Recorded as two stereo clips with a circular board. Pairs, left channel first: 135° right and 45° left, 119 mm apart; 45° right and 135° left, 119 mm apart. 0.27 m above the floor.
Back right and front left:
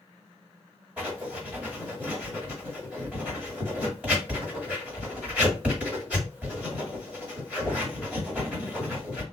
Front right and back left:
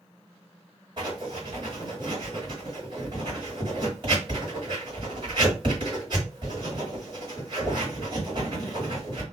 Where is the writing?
120° left, 1.8 m.